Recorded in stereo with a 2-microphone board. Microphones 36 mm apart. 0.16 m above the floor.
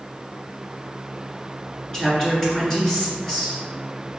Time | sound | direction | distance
1.9 | a woman speaking | 15° left (ahead or behind) | 1.7 m